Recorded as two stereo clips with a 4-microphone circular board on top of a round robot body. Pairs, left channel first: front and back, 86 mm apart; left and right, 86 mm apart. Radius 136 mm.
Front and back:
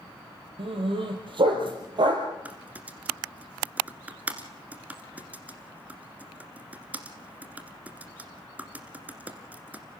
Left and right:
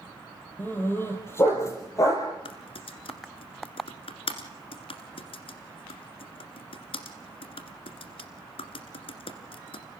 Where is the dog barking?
160° left, 4.5 m; by 2.3 s 140° left, 4 m.